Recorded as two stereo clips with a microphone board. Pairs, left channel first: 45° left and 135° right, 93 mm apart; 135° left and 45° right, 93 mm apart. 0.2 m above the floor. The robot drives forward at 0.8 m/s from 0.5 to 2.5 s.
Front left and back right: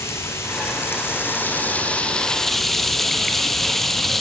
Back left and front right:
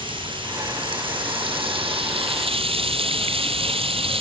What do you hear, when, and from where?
0.0 s running water: 15° right, 2.5 m; by 4.2 s 40° right, 1.1 m